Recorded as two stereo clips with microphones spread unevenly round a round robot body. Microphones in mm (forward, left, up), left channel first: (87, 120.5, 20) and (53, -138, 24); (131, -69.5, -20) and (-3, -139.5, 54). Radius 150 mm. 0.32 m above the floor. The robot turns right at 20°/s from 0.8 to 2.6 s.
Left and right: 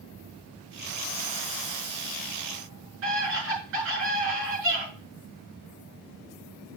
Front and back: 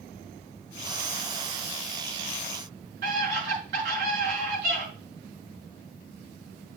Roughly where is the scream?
Behind right.